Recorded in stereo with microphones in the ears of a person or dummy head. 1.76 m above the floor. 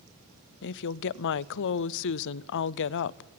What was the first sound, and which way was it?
A woman speaking, 65° left (ahead or behind).